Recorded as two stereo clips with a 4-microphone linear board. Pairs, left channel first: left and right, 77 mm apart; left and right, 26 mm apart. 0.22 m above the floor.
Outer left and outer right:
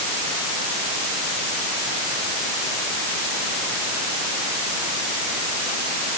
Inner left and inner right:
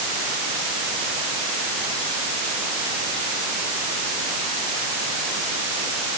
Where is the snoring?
I don't hear snoring.